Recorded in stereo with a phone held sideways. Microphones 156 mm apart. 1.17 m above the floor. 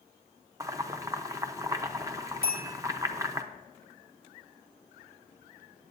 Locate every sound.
0.6 s boiling: 20° right (ahead or behind), 0.8 m
2.4 s a bell: 70° left (ahead or behind), 3 m